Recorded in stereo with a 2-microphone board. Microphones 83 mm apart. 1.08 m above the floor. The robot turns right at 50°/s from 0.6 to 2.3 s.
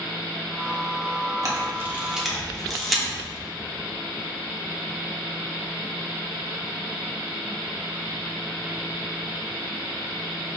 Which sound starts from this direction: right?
A camera shutter, at 1.4 s.